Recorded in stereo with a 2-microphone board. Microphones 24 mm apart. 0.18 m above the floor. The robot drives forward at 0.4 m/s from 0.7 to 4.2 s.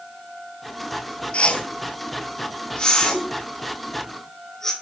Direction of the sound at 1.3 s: 65° left (ahead or behind).